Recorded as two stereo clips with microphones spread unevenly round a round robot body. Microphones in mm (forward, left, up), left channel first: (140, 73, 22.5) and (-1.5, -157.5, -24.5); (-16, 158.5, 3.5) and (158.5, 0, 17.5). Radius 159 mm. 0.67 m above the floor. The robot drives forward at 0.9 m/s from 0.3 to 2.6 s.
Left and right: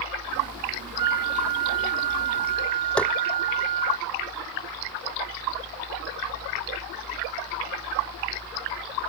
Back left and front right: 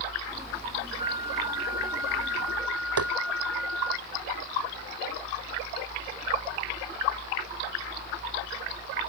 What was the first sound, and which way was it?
A flute, 115° right.